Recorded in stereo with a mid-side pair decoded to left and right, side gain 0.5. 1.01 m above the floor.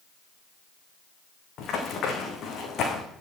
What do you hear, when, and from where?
1.6 s running footsteps: 65° left, 4 m